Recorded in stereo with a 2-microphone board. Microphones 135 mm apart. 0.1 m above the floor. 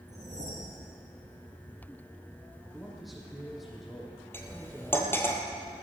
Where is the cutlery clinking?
15° left (ahead or behind), 1.8 m.